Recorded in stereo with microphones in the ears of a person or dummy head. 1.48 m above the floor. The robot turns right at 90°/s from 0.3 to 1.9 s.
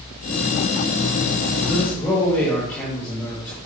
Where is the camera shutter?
No camera shutter in this recording.